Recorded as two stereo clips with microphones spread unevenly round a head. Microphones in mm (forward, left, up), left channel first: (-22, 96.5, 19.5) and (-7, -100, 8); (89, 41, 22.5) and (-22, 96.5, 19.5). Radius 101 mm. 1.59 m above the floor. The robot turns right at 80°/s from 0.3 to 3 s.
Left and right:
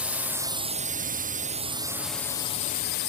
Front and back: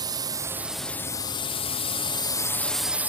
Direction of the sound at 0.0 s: 165° right.